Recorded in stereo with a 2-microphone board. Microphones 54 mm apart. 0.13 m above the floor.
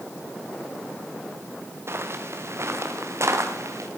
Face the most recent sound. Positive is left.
turn(degrees=-60)  # may be behind; listen again after turning